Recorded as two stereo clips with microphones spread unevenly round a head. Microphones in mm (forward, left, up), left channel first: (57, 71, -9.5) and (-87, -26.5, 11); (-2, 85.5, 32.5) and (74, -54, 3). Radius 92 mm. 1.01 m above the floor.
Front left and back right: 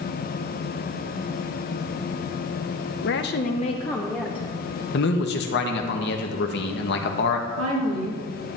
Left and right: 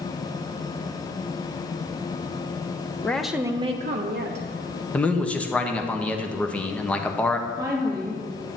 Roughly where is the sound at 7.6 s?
Behind right.